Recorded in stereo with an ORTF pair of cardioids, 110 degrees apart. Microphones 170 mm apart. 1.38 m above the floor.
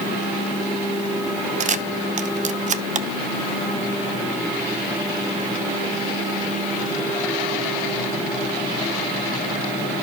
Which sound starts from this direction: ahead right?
A camera shutter, at 1.6 s.